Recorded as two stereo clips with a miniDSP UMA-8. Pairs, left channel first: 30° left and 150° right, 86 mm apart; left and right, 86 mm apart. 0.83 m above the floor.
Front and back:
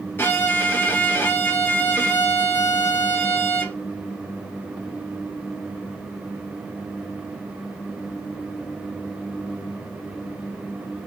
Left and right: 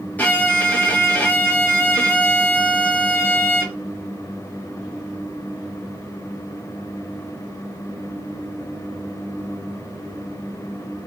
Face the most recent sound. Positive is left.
turn(degrees=50)